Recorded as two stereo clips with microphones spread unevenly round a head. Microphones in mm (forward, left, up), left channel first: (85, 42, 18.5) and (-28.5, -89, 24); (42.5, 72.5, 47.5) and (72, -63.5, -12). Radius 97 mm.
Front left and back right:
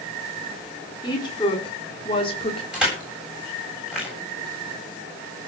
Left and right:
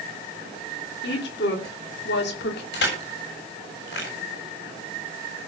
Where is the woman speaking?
120° left, 3.5 m; by 2.6 s 110° left, 3 m.